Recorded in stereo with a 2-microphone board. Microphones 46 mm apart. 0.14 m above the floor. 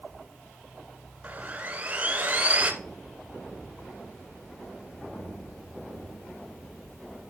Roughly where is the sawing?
Right.